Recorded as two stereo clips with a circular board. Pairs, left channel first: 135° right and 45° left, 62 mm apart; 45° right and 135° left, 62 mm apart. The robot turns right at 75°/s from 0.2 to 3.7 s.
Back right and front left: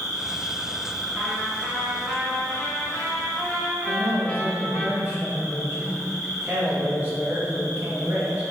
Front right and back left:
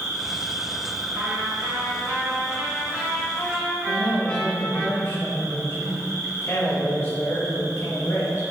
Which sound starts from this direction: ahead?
A man speaking, at 3.9 s.